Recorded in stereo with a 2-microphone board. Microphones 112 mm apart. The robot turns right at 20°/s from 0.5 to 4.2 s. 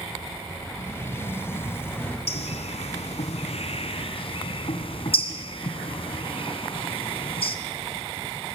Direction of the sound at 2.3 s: 70° left (ahead or behind).